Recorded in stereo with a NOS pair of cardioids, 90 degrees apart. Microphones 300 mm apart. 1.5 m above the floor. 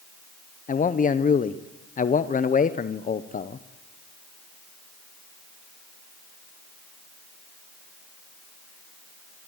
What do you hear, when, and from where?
0.7 s a man speaking: 25° left, 0.7 m